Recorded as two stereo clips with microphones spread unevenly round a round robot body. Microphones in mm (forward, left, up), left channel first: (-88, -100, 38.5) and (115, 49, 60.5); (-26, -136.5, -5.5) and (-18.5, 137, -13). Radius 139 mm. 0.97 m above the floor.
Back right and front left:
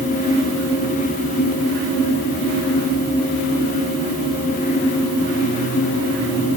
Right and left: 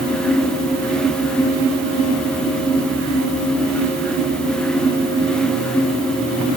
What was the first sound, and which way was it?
Only background noise.